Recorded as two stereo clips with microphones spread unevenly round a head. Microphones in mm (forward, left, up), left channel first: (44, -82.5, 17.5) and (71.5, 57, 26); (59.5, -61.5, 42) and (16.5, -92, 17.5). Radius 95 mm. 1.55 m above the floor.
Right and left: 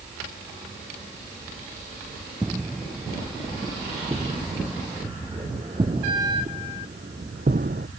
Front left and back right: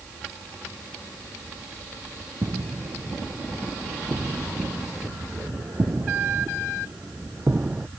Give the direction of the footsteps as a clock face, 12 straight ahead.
7 o'clock.